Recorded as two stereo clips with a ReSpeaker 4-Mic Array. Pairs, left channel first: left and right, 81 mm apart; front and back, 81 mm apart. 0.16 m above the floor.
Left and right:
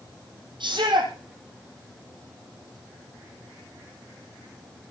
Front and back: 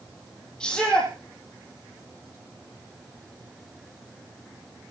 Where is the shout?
80° right, 5 m.